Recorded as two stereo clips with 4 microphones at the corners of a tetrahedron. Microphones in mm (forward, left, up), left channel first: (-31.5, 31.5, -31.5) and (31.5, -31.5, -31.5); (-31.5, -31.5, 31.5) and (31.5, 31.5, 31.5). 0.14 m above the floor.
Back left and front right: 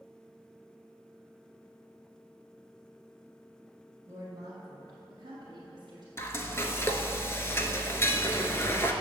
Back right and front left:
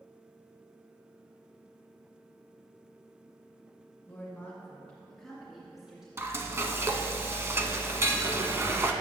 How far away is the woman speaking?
About 2 m.